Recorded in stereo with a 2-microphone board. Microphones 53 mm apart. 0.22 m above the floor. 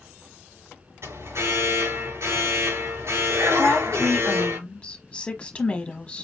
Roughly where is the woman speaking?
Left.